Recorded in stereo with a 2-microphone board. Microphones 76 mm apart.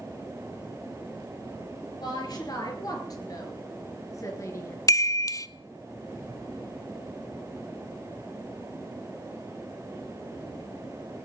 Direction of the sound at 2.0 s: 60° left (ahead or behind).